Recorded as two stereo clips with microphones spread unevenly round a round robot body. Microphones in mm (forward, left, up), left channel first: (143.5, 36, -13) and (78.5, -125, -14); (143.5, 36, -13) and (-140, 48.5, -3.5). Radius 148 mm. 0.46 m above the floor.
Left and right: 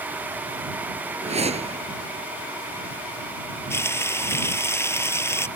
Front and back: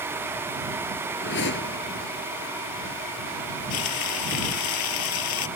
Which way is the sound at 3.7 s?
10° right.